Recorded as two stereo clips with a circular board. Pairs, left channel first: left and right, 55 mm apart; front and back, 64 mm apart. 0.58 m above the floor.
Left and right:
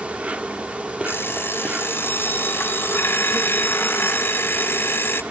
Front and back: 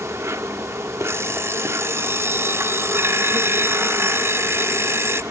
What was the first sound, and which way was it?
An insect, 155° right.